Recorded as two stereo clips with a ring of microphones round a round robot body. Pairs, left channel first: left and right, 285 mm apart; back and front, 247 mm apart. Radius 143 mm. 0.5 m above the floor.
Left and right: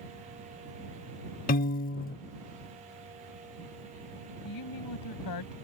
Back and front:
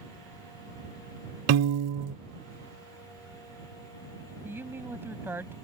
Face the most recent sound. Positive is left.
turn(degrees=80)